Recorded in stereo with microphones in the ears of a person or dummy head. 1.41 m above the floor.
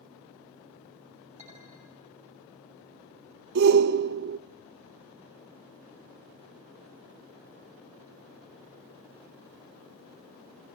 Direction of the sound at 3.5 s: 50° right (ahead or behind).